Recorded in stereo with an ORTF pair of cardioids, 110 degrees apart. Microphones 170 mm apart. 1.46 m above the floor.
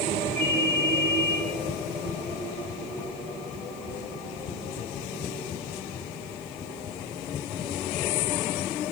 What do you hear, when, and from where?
0.4 s a ringtone: 55° right, 4.5 m